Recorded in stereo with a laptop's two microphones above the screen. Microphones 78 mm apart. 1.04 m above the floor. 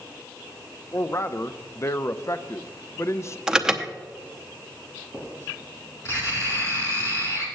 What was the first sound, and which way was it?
A man speaking, 35° left (ahead or behind).